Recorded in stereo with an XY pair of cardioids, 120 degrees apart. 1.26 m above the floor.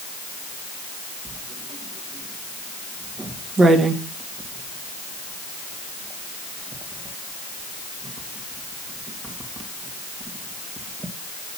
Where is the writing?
35° right, 2 m.